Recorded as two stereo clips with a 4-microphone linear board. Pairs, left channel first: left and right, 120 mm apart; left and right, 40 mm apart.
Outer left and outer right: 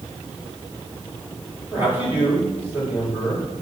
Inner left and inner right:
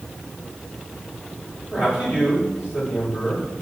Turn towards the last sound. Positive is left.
turn(degrees=-15)  # may be behind; listen again after turning